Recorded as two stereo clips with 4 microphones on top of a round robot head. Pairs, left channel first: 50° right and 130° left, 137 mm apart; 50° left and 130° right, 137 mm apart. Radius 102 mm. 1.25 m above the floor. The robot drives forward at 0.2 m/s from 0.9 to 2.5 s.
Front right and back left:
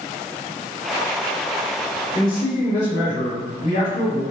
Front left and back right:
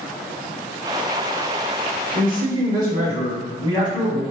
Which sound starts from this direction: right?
A man speaking, at 2.1 s.